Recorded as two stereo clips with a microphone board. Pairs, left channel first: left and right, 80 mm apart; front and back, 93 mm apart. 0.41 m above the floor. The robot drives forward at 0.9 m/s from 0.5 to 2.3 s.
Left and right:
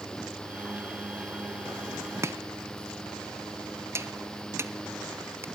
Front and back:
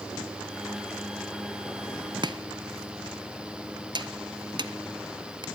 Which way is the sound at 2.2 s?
145° right.